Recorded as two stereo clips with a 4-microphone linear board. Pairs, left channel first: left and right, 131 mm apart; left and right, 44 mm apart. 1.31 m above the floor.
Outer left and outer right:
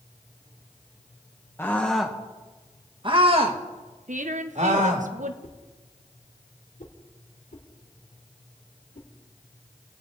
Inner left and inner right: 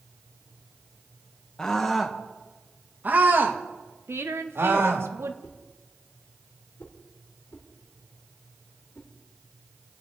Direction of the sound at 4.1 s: 70° right (ahead or behind).